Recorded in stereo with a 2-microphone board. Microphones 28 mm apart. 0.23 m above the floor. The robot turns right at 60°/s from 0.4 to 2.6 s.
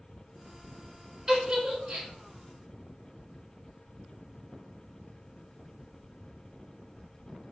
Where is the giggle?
20° right (ahead or behind), 0.9 m; by 2.1 s 65° right (ahead or behind), 0.9 m.